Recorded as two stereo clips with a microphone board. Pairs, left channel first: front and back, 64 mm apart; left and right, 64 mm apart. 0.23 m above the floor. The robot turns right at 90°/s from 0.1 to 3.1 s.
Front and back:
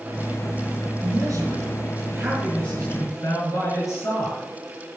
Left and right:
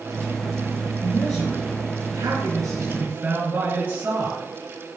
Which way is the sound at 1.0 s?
140° left.